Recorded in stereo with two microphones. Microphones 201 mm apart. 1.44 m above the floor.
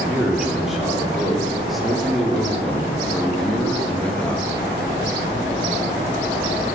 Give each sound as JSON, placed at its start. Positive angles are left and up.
{"t": 0.1, "sound": "a man speaking", "side_deg": 0, "distance_m": 4.5}